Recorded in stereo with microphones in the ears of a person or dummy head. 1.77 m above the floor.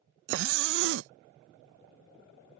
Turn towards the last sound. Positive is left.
turn(degrees=-70)  # may be behind; listen again after turning